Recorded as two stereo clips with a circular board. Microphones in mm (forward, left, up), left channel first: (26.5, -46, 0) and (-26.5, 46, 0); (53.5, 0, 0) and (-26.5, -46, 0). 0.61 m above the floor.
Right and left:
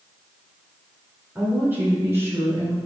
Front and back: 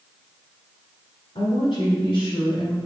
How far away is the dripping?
No dripping in this recording.